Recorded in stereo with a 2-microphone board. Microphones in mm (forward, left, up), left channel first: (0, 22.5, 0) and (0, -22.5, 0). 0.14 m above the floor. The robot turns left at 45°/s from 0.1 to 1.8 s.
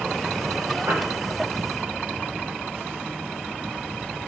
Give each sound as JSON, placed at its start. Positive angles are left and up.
{"t": 0.9, "sound": "a piano", "side_deg": -55, "distance_m": 9.0}